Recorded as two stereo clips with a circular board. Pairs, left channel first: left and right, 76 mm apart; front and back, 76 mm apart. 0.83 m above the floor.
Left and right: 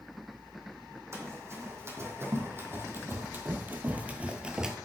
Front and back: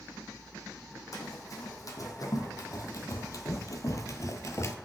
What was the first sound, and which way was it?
Running footsteps, 40° right.